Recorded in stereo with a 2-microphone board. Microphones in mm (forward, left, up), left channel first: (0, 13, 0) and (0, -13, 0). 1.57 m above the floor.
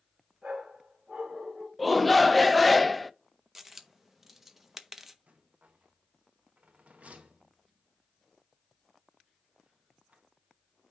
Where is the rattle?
60° right (ahead or behind), 1.3 m.